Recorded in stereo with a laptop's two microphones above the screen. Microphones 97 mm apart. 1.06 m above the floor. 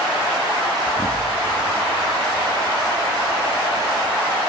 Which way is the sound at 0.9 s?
40° left (ahead or behind).